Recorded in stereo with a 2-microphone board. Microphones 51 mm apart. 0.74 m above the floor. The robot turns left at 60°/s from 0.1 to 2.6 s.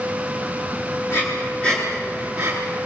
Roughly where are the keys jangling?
I don't hear keys jangling.